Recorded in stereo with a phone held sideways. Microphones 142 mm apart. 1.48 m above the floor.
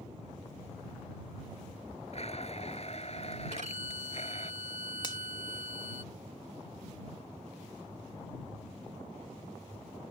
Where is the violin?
60° right (ahead or behind).